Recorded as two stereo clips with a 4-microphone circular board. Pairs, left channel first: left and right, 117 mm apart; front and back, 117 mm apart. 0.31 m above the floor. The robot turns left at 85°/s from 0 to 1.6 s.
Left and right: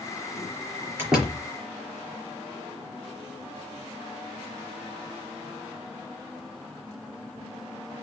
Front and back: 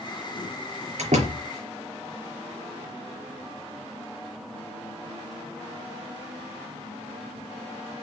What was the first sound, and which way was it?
A door slam, 165° right.